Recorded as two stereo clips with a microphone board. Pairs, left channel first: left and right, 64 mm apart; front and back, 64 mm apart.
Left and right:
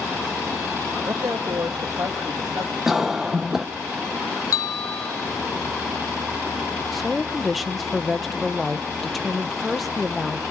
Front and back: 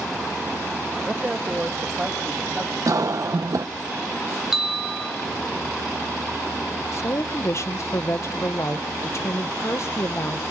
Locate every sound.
1.1 s a man speaking: 120° right, 1.2 m
2.9 s a cough: 175° right, 0.5 m
4.5 s a bell: 100° left, 2 m
6.9 s a woman speaking: straight ahead, 0.9 m